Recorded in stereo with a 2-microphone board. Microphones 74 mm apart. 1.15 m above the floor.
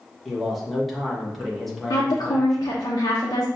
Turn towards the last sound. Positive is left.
turn(degrees=65)  # may be behind; listen again after turning